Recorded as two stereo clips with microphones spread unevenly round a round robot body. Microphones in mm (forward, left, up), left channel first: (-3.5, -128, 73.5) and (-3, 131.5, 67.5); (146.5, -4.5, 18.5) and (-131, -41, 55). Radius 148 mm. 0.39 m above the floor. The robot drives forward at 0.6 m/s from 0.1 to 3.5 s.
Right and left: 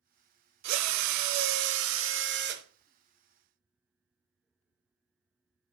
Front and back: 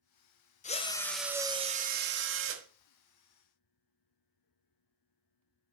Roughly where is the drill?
Left.